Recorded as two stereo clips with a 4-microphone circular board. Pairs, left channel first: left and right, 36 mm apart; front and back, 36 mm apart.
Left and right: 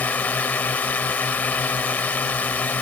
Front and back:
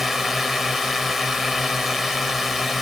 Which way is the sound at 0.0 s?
95° left.